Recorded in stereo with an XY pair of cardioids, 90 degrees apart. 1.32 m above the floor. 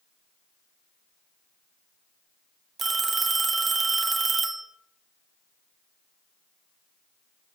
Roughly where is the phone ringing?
Ahead right.